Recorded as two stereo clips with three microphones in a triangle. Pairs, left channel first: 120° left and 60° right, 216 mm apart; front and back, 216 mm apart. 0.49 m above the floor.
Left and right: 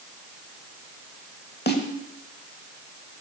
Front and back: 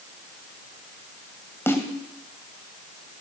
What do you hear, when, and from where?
1.7 s a snare drum: 80° left, 1.1 m